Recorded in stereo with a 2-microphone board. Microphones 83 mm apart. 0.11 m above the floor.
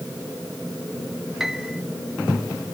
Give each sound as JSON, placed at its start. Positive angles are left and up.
{"t": 1.4, "sound": "a piano", "side_deg": -5}